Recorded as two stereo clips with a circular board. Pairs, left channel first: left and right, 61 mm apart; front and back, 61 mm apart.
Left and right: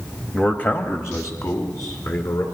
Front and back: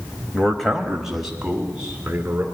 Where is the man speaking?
55° left, 0.9 m; by 2.5 s 110° left, 2.5 m.